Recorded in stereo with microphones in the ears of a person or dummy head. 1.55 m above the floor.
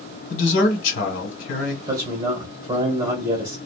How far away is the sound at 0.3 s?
About 1.1 m.